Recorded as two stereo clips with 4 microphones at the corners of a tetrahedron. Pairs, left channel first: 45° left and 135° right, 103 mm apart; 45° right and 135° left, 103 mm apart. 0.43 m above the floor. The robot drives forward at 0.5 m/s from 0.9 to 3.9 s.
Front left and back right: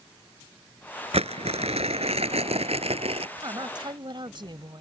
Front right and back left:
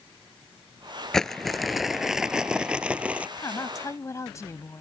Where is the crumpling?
130° right; by 3.3 s 150° right.